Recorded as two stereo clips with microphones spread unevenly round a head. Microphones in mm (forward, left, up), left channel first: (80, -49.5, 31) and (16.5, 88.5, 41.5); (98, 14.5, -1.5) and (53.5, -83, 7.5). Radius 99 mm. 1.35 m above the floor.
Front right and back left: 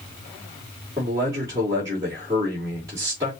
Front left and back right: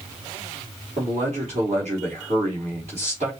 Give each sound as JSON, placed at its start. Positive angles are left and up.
{"t": 1.0, "sound": "a man speaking", "azimuth_deg": -170, "distance_m": 2.5}